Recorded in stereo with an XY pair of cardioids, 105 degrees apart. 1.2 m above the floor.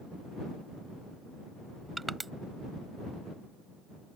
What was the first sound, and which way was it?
Crushing, 15° right.